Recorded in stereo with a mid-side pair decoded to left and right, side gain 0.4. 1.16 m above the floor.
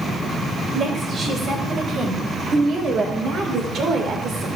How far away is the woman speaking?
About 6 m.